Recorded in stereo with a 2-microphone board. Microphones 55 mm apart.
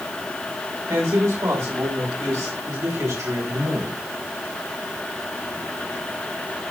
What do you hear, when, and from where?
0.9 s a man speaking: 75° right (ahead or behind), 5.5 m; by 4.0 s 70° right (ahead or behind), 7.5 m